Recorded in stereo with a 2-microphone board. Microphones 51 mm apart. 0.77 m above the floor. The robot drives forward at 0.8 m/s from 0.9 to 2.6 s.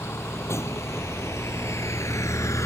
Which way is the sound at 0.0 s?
65° left (ahead or behind).